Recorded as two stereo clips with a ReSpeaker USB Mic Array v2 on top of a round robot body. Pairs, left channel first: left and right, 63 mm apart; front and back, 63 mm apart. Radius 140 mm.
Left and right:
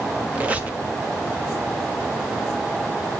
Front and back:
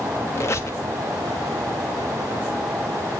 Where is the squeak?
30° right, 1.2 m.